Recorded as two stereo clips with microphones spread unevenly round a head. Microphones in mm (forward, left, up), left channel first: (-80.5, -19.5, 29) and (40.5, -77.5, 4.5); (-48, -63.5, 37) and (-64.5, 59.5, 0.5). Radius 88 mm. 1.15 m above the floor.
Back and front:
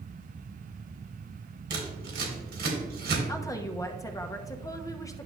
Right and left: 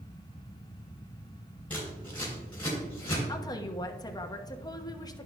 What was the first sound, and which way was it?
Scissors, 5° right.